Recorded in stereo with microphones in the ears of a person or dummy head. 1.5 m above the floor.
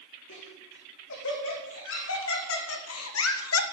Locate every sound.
0.3 s laughter: 65° left (ahead or behind), 4.5 m; by 3.6 s 75° left (ahead or behind), 1.3 m